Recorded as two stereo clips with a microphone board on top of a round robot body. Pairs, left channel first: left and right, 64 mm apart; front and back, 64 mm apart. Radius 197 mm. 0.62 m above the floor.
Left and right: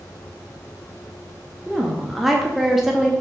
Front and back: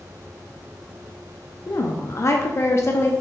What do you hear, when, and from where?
1.7 s a woman speaking: 5° right, 0.6 m